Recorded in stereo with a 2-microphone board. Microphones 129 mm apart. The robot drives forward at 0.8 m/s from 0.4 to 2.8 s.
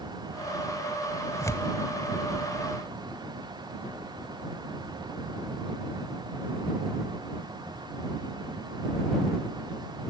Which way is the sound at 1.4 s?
25° left (ahead or behind).